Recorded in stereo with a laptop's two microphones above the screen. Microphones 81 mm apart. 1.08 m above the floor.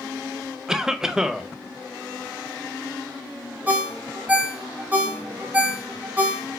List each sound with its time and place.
0.7 s a cough: 5° right (ahead or behind), 0.6 m
3.7 s a ringtone: 20° right (ahead or behind), 0.6 m